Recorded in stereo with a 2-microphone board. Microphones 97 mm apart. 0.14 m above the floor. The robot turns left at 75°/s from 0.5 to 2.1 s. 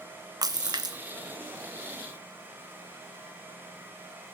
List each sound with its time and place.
0.4 s a splash: 75° right, 0.5 m; by 1.0 s 110° right, 0.5 m